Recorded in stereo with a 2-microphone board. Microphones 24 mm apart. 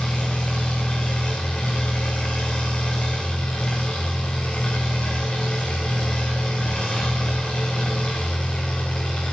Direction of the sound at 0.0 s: 50° left (ahead or behind).